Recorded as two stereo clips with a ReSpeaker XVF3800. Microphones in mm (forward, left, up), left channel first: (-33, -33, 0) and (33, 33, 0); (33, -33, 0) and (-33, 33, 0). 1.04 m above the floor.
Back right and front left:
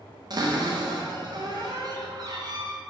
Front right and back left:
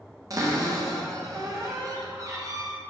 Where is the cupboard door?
85° left, 0.5 m.